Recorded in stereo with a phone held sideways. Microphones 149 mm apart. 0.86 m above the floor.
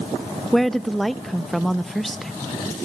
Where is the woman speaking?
Centre (ahead or behind), 0.5 m.